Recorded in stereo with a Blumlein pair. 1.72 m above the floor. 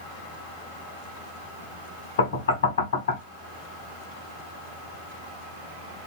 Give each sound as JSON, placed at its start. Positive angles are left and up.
{"t": 2.2, "sound": "knocking", "azimuth_deg": 60, "distance_m": 1.0}